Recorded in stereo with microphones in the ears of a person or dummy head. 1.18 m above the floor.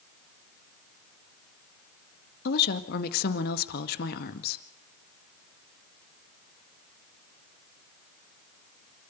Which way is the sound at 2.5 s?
55° left (ahead or behind).